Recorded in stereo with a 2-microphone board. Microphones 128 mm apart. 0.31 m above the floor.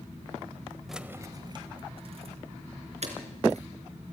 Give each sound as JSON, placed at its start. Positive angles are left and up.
{"t": 0.9, "sound": "keys jangling", "side_deg": 0, "distance_m": 1.0}